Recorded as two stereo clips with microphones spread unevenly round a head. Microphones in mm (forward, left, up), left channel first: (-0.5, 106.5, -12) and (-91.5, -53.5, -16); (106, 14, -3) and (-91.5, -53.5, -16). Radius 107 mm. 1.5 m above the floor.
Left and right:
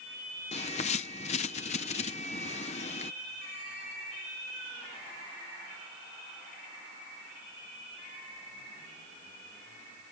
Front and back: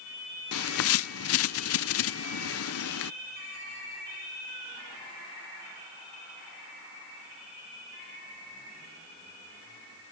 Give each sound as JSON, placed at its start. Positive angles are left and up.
{"t": 0.5, "sound": "a bird", "azimuth_deg": 0}